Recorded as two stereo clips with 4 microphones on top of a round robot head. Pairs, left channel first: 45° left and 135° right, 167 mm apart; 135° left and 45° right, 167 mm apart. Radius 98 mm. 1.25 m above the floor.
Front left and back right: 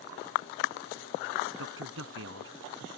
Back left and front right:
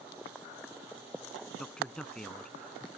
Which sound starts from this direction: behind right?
A man speaking, at 1.6 s.